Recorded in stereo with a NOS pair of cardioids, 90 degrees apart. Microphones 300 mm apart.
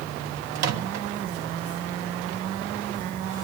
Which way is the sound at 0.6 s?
60° right.